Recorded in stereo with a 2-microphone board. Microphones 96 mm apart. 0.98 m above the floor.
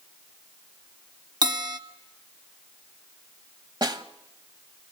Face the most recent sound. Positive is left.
turn(degrees=-50)  # may be behind; listen again after turning